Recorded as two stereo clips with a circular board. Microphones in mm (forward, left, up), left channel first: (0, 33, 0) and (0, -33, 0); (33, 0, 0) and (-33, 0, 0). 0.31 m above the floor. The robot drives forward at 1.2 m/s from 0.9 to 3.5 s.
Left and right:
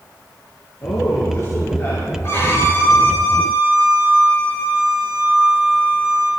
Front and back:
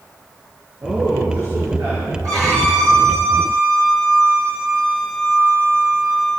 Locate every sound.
0.8 s a man speaking: 135° left, 6 m; by 2.1 s 145° left, 7 m
2.2 s a violin: 140° left, 8 m; by 6.3 s 150° left, 9.5 m